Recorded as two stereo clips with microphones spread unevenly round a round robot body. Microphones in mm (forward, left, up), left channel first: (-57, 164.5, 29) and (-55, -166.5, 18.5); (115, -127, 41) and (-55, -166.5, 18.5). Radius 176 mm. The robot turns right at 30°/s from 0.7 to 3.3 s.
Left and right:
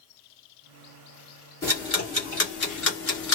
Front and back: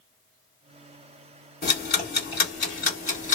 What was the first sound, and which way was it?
Ticking, 10° left.